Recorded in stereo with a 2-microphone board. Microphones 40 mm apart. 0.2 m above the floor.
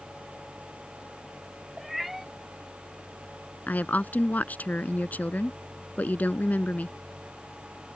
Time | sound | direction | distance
1.8 | a cat meowing | 5° right (ahead or behind) | ?
3.7 | a woman speaking | 45° left (ahead or behind) | ?